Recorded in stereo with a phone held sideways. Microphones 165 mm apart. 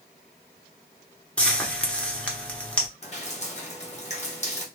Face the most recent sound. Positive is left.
turn(degrees=45)  # may be behind; listen again after turning